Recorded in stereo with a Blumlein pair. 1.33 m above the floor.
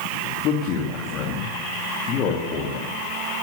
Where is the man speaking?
35° left, 2.5 m.